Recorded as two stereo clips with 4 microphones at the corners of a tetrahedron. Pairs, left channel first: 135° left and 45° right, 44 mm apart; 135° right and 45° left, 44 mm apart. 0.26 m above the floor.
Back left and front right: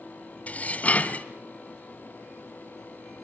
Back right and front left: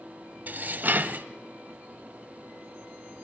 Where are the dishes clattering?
85° left, 1.0 m.